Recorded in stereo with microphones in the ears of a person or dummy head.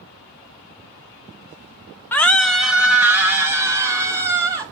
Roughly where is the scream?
Centre.